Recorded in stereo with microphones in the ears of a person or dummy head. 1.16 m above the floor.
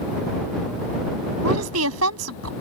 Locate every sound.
1.4 s a woman speaking: 85° right